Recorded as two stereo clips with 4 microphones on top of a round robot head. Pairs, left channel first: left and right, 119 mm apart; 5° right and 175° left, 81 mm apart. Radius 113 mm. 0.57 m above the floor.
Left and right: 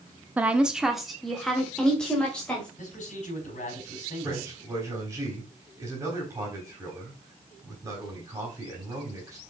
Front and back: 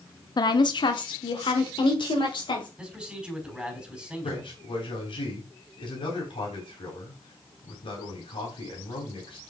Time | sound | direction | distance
0.4 | a woman speaking | 15° right | 0.9 m
2.8 | a man speaking | 90° left | 4 m
4.2 | a man speaking | 20° right | 4 m